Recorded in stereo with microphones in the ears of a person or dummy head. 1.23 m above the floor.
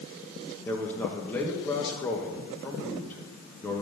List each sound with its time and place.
0.7 s a man speaking: 15° left (ahead or behind), 1.4 m